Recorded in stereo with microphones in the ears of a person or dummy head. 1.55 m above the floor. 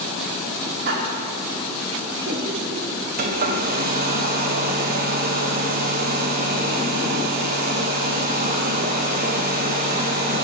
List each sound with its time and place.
0.8 s laughter: 60° right (ahead or behind), 3 m; by 2.9 s 65° right (ahead or behind), 4.5 m
3.2 s a hair dryer: 45° right (ahead or behind), 1.9 m